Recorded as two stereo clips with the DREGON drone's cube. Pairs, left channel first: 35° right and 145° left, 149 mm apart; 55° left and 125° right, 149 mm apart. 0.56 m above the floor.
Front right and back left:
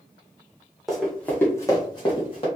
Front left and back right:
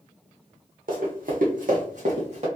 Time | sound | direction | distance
0.9 | running footsteps | 125° right | 1.5 m